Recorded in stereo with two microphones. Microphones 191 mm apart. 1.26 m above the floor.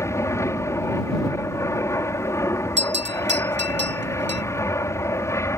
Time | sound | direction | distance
0.0 | an aircraft | 15° left (ahead or behind) | ?
2.8 | a bell | 70° right (ahead or behind) | ?